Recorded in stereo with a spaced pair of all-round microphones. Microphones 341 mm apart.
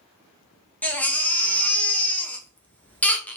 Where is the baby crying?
5° left (ahead or behind), 0.6 m.